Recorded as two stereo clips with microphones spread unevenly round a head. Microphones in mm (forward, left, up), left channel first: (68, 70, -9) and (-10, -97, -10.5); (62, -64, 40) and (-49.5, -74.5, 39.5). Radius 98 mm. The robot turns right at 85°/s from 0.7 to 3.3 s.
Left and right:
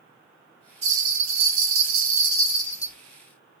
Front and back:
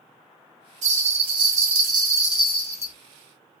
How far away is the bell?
About 1.6 m.